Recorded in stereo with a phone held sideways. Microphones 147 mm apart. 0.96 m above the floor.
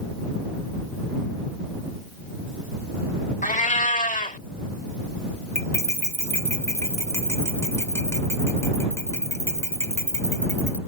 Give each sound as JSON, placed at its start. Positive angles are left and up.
{"t": 3.4, "sound": "a cat meowing", "side_deg": 60}
{"t": 5.5, "sound": "cutlery clinking", "side_deg": 15}